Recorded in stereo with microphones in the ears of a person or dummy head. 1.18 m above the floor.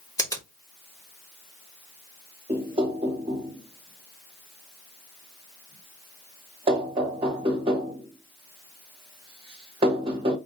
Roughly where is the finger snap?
Centre.